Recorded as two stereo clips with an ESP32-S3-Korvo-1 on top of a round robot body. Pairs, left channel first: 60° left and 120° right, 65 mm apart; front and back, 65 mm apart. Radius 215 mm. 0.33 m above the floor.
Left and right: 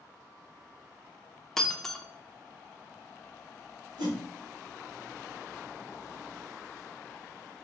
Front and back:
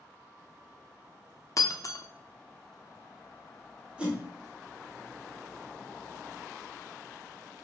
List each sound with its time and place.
1.6 s breaking glass: 25° right, 0.7 m
4.0 s a whoosh: 105° right, 1.1 m